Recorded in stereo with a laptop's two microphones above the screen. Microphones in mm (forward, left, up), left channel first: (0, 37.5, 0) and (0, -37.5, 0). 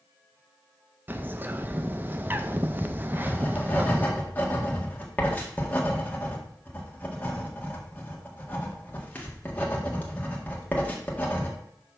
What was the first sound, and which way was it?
A bird, 30° right (ahead or behind).